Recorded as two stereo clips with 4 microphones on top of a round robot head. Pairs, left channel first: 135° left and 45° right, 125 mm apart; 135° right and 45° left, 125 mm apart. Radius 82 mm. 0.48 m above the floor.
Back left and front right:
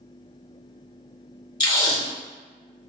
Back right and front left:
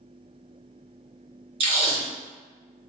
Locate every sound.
1.6 s tape being pulled: 85° left, 1.5 m